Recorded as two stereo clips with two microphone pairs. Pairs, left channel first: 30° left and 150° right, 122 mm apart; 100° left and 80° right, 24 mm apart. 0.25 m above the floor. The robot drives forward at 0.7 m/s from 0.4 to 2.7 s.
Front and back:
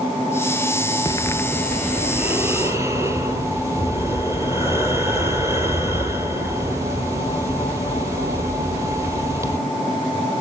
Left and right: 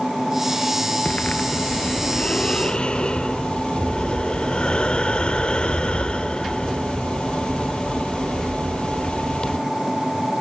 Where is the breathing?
85° left, 0.8 m; by 9.6 s 145° left, 1.3 m.